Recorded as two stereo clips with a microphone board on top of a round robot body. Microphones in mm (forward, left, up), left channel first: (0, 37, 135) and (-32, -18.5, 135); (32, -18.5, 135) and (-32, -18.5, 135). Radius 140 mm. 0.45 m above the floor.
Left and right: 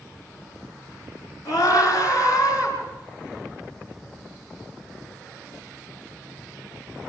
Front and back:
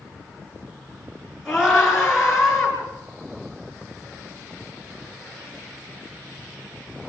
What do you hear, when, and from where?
1.4 s a scream: 105° left, 10 m; by 2.8 s 100° left, 9.5 m